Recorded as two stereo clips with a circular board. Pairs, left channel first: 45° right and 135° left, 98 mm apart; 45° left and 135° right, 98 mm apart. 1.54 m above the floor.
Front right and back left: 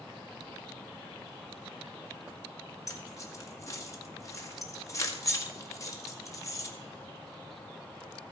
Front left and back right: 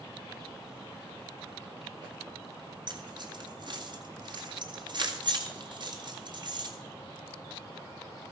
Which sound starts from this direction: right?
Keys jangling, at 2.9 s.